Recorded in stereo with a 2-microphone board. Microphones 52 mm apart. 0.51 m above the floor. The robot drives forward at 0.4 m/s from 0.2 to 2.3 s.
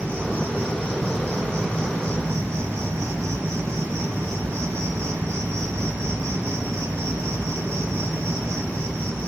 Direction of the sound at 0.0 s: 50° right (ahead or behind).